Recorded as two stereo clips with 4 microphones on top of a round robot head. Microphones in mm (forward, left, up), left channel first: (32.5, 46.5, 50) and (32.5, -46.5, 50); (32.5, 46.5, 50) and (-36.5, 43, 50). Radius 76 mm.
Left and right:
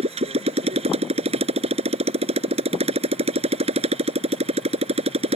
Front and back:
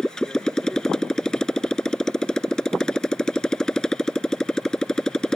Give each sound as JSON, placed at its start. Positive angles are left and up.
{"t": 0.0, "sound": "a motorcycle", "azimuth_deg": -80}